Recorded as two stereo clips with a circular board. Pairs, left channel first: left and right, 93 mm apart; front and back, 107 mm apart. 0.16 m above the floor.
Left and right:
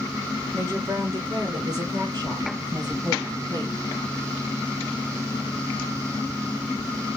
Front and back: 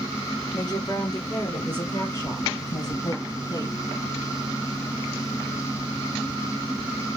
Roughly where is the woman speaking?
Ahead right.